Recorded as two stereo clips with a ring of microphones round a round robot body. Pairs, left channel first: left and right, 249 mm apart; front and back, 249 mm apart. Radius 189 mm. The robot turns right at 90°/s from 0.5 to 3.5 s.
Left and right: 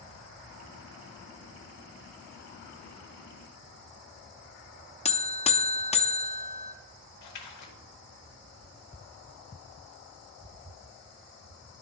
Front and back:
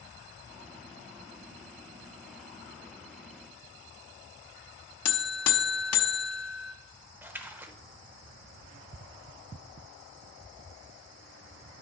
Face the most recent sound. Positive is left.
turn(degrees=95)